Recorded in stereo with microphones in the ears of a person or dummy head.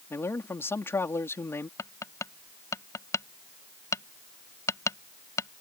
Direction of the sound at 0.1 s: 10° left (ahead or behind).